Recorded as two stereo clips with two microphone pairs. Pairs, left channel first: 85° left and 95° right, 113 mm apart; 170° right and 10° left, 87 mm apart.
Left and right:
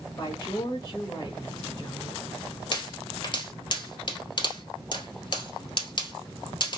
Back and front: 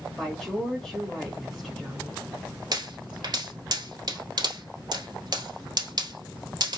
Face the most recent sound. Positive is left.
turn(degrees=45)